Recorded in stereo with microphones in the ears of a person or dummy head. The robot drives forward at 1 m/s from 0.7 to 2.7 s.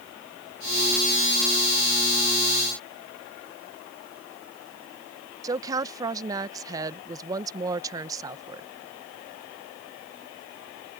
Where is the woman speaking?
20° right (ahead or behind).